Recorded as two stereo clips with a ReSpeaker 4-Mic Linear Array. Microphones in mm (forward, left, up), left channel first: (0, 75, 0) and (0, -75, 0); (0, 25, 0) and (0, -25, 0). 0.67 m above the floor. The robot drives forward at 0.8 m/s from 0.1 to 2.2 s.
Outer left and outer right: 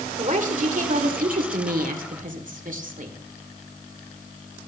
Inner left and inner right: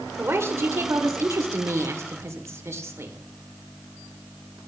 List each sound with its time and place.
0.2 s a woman speaking: 55° right (ahead or behind), 2 m; by 3.2 s 65° right (ahead or behind), 2 m